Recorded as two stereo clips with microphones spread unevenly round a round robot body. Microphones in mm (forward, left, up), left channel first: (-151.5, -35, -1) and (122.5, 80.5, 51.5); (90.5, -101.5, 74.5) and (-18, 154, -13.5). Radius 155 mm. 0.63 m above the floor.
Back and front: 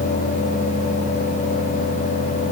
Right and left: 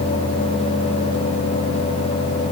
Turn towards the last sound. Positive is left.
No sound to turn to.